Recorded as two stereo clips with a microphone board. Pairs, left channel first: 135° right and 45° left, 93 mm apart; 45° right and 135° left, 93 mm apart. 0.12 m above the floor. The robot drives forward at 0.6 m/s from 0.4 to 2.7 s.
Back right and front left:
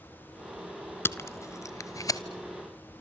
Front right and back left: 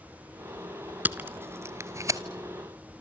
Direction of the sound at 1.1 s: 170° right.